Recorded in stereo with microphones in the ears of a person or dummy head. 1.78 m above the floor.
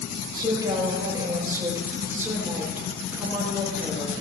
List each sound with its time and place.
0.3 s a woman speaking: 20° right (ahead or behind), 8.5 m; by 4.2 s centre (ahead or behind), 8 m